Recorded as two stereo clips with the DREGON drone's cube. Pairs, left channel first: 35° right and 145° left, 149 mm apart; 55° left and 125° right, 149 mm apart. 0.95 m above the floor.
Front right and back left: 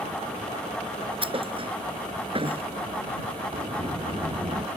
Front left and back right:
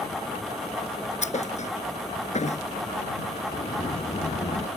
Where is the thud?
95° left.